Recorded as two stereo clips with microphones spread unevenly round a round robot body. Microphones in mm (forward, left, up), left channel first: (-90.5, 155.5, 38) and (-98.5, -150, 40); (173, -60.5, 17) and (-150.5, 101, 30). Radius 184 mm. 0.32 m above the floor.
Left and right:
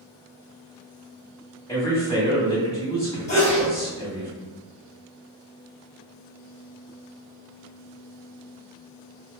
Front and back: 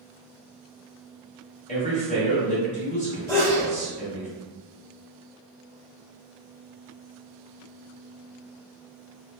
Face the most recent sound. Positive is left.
turn(degrees=50)